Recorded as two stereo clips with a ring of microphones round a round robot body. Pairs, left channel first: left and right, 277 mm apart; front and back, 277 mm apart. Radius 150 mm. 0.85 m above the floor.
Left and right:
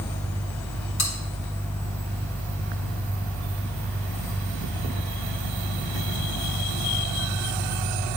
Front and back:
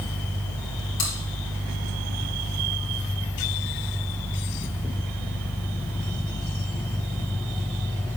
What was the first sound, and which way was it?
Chewing, 50° left.